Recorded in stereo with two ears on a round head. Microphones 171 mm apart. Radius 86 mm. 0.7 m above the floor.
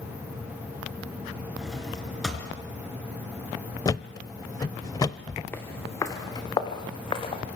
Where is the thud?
20° left (ahead or behind), 0.8 m.